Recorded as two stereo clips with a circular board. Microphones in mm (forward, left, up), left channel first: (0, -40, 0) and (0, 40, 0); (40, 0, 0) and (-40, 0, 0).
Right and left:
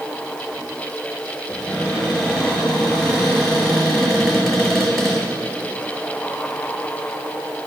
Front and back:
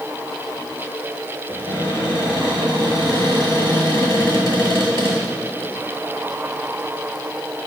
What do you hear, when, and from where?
1.5 s a cupboard door: straight ahead, 3.5 m